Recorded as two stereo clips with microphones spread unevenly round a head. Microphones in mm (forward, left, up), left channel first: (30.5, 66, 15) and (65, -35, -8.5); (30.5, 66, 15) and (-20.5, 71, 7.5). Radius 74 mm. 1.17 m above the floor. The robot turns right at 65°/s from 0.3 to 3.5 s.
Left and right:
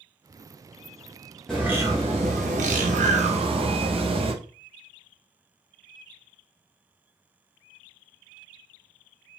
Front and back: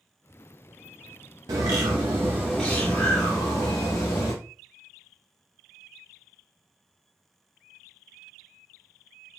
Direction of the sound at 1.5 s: 165° right.